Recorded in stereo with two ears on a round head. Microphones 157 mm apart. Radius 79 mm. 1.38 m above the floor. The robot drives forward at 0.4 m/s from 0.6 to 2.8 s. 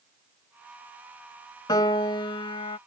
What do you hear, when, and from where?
1.7 s a piano: 20° left (ahead or behind); by 2.8 s 30° left (ahead or behind)